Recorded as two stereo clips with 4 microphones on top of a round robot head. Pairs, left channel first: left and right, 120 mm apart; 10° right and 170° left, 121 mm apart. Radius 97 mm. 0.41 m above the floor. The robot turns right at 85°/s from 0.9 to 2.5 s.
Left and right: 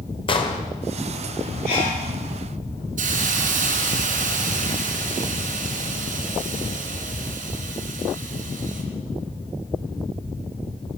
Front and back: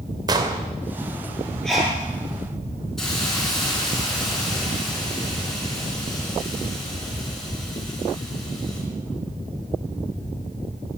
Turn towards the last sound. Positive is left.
turn(degrees=-95)